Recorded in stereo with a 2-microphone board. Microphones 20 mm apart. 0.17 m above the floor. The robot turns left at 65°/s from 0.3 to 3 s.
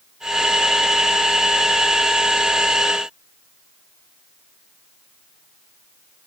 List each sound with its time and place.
Only background noise.